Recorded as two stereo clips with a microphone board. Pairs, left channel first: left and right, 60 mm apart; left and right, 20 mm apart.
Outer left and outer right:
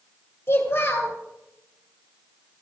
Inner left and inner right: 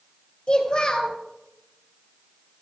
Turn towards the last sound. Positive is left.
turn(degrees=45)  # may be behind; listen again after turning